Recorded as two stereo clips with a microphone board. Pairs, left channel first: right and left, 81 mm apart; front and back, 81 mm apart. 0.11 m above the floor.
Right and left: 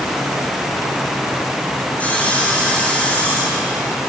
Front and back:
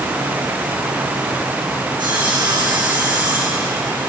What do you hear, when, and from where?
2.0 s sawing: 160° right, 5.5 m